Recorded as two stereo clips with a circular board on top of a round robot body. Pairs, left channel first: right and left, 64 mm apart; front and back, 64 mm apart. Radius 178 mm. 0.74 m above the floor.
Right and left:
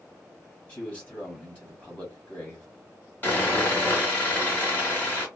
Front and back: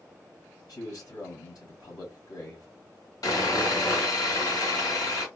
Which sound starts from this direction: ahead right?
Sawing, at 3.2 s.